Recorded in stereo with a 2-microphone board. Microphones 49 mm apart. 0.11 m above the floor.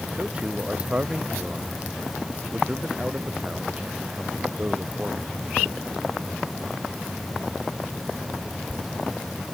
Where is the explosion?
No explosion in this recording.